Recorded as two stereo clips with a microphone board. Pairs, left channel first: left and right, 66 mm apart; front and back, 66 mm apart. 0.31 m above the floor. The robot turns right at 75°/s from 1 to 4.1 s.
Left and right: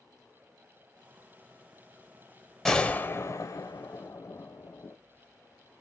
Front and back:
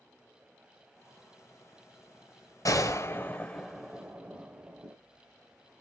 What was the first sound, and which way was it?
A gunshot, 10° left.